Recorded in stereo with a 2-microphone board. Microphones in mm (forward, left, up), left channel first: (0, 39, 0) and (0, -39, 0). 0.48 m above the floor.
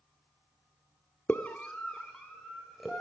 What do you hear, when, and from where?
1.3 s a scream: 25° left (ahead or behind), 0.9 m; by 3.0 s centre (ahead or behind), 2 m